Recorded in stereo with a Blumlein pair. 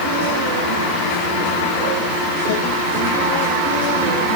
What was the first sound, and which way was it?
Only background noise.